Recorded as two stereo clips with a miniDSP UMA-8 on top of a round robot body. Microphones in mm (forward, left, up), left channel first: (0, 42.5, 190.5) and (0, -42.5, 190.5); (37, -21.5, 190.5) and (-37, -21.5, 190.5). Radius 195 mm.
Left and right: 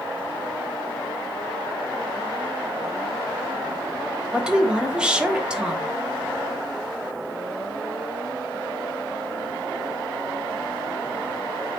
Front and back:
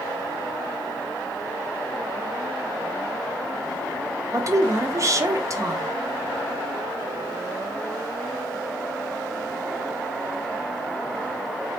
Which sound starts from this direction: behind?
A woman speaking, at 4.3 s.